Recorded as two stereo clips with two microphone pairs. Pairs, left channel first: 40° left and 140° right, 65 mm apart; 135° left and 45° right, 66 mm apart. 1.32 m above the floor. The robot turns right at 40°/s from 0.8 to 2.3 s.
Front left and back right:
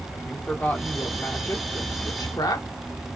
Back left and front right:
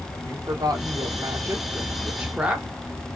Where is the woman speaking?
30° right, 1.0 m; by 2.7 s 30° left, 1.0 m.